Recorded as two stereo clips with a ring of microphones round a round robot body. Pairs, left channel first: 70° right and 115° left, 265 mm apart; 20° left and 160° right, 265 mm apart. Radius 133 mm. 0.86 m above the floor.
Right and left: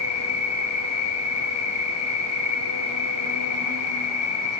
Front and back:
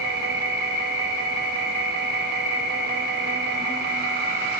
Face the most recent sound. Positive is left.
turn(degrees=-100)